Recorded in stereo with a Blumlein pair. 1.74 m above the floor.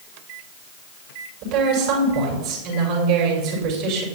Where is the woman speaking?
45° right, 5.5 m.